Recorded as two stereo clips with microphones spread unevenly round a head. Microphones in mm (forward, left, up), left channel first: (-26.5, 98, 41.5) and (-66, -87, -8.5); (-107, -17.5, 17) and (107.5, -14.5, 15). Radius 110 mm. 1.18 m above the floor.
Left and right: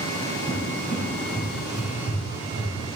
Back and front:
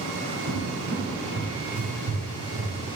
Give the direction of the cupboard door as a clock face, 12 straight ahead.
1 o'clock.